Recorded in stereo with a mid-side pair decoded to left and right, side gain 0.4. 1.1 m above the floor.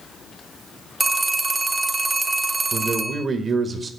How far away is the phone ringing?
About 0.8 m.